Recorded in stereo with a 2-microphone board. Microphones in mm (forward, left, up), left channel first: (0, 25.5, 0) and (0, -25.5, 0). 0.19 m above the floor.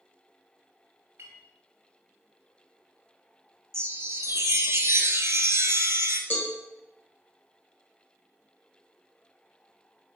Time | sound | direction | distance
1.2 | a clink | 70° right (ahead or behind) | 2 m
3.7 | a chime | 70° right (ahead or behind) | 0.7 m
6.3 | a cowbell | 45° left (ahead or behind) | 1.5 m